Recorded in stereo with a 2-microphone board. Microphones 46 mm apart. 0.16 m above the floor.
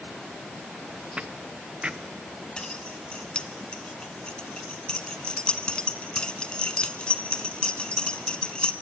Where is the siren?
I don't hear a siren.